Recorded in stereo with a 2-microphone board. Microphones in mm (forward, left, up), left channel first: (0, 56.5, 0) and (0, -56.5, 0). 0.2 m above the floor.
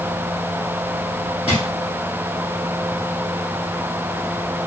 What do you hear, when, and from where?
1.5 s a drawer: 60° left (ahead or behind), 2 m